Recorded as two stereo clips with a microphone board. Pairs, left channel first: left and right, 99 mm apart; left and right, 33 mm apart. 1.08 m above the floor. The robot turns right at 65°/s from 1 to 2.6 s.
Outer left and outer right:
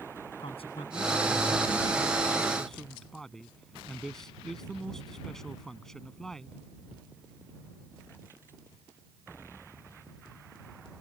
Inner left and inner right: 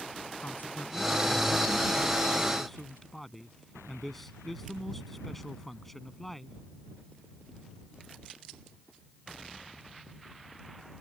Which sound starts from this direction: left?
A man speaking, at 0.4 s.